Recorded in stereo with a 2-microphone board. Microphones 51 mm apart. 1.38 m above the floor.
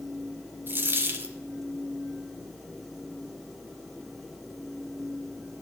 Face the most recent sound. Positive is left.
turn(degrees=-45)  # may be behind; listen again after turning